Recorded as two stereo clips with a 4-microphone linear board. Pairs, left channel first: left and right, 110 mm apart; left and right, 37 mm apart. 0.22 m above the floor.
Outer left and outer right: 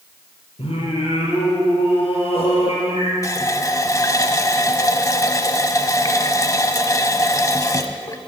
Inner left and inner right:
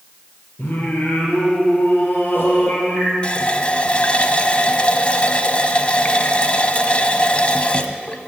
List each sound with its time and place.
0.6 s singing: 55° left (ahead or behind), 3.5 m
3.2 s a running tap: 30° left (ahead or behind), 0.7 m